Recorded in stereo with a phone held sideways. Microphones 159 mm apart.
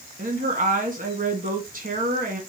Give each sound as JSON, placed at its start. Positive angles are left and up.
{"t": 0.2, "sound": "a woman speaking", "side_deg": -60, "distance_m": 1.4}